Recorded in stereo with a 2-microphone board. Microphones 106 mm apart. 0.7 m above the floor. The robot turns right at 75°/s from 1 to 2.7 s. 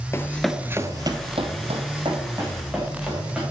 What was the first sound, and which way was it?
Running footsteps, 25° left (ahead or behind).